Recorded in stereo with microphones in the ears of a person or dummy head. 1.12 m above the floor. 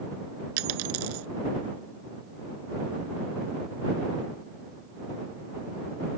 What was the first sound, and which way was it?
A dropped coin, 80° right.